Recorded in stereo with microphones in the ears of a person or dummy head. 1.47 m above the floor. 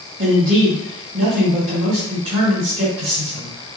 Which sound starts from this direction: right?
A man speaking, at 0.2 s.